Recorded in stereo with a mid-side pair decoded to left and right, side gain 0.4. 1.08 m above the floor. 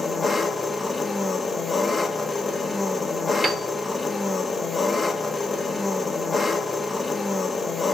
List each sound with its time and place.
0.0 s an engine running: 30° left, 1.7 m
3.4 s a piano: 25° right, 1.7 m